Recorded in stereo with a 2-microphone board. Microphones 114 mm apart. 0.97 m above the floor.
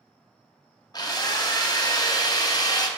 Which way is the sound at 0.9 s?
35° left (ahead or behind).